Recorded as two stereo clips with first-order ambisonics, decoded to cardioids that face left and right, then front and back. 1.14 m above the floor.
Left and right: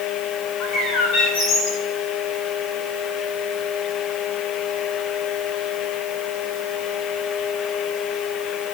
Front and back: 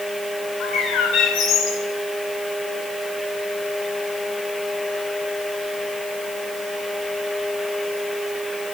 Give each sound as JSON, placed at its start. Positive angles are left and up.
{"t": 0.6, "sound": "a bird", "azimuth_deg": 45, "distance_m": 8.0}